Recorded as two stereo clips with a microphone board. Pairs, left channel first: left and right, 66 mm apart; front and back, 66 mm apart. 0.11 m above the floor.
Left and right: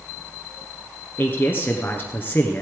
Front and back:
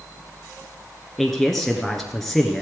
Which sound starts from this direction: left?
A man speaking, at 1.2 s.